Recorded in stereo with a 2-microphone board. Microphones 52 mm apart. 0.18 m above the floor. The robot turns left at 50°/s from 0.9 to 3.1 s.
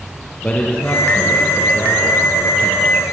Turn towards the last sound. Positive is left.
turn(degrees=40)